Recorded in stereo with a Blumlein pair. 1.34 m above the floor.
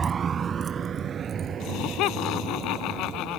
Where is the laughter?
40° left.